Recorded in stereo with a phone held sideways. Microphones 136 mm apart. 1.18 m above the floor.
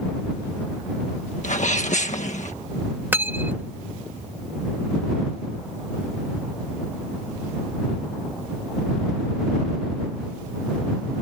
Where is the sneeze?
65° left (ahead or behind).